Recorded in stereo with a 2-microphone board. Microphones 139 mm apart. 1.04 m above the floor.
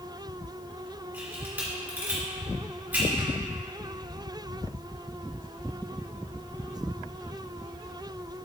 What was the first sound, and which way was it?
A camera shutter, 15° right (ahead or behind).